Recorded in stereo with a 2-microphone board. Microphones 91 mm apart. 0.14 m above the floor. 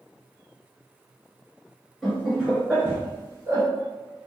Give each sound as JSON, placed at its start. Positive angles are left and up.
{"t": 2.0, "sound": "laughter", "side_deg": 0, "distance_m": 1.6}